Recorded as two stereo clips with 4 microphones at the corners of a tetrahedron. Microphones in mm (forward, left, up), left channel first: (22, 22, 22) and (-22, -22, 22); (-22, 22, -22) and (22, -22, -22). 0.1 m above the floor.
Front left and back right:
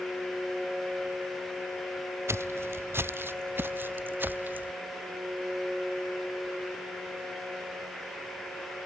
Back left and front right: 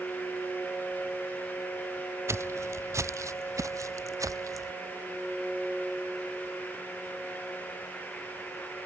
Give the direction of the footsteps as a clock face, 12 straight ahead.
3 o'clock.